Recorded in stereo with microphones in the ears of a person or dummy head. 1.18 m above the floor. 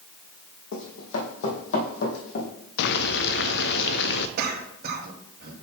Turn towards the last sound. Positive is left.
turn(degrees=-55)  # may be behind; listen again after turning